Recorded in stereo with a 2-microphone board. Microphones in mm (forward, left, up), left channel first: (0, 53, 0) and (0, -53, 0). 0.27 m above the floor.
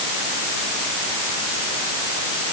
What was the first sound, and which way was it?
Only background noise.